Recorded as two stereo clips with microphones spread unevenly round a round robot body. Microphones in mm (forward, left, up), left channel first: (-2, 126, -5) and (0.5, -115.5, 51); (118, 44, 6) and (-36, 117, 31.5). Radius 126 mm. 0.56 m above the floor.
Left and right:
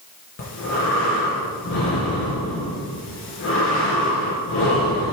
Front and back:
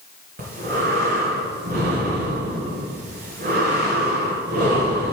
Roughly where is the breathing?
Behind left.